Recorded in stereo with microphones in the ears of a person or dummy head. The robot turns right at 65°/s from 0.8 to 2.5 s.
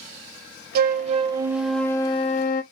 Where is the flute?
55° right, 0.6 m; by 2.6 s 55° left, 0.6 m.